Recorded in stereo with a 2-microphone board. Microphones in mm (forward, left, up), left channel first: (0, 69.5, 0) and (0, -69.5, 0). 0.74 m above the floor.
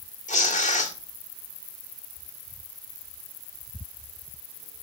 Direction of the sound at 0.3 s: 60° left (ahead or behind).